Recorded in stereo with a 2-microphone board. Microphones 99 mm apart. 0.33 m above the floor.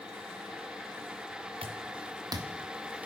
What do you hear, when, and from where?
1.6 s footsteps: 65° right (ahead or behind), 1.8 m; by 3.1 s 15° right (ahead or behind), 1.7 m